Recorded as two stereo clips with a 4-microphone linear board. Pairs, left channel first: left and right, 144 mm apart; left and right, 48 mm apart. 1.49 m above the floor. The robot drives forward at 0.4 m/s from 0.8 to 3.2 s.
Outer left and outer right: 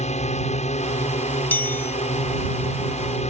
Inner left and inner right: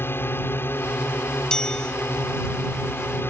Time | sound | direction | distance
0.0 | a drone | 55° left (ahead or behind) | ?
1.5 | a chime | 15° left (ahead or behind) | ?